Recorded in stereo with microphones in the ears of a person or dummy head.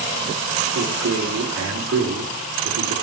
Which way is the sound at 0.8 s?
70° right (ahead or behind).